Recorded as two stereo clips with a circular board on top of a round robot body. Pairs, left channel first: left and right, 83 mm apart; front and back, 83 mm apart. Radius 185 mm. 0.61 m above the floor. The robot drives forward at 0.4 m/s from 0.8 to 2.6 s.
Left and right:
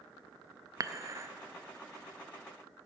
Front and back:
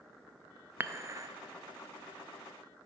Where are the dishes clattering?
120° right, 0.7 m; by 1.3 s 140° right, 0.7 m.